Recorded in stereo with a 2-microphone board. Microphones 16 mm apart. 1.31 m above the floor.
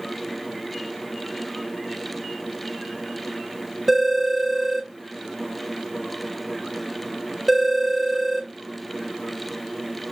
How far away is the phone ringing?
About 0.6 m.